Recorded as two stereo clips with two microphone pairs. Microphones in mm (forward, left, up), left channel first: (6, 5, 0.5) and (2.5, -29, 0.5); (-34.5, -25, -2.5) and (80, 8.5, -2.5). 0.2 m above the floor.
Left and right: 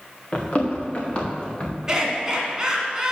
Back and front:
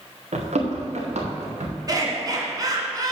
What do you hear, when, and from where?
0.3 s running footsteps: 35° left, 2 m
1.9 s laughter: 30° right, 2 m